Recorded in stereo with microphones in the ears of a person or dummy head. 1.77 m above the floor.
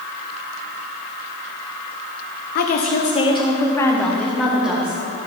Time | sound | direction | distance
2.5 | a woman speaking | 55° left (ahead or behind) | 1.0 m